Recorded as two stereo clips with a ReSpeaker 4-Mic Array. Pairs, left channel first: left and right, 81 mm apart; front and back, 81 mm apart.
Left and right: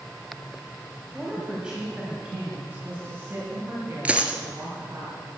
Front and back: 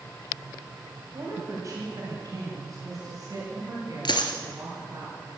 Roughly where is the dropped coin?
Ahead.